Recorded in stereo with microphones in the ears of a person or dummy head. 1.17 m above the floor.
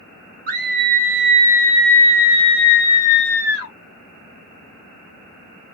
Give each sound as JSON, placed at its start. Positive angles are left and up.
{"t": 0.5, "sound": "a scream", "side_deg": -45, "distance_m": 0.9}